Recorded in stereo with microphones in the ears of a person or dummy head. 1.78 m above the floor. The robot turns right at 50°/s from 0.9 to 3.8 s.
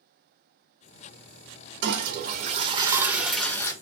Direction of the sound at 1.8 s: 80° right.